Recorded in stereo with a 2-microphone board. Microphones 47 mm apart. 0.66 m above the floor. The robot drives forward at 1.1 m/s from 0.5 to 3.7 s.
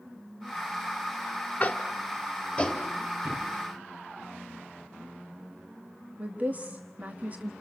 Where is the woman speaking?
35° right (ahead or behind), 1.3 m.